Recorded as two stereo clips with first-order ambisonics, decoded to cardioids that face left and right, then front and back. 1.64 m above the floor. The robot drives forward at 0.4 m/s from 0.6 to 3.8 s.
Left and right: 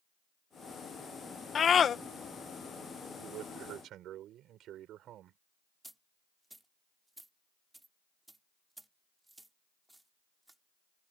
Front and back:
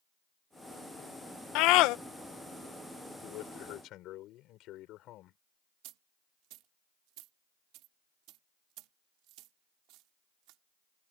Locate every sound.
1.6 s a scream: 25° left
3.2 s a man speaking: 40° right
5.8 s a dropped coin: 175° right